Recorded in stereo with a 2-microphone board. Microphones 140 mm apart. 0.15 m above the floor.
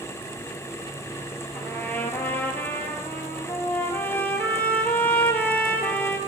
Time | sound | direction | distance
1.5 | a trumpet | 15° left (ahead or behind) | 1.0 m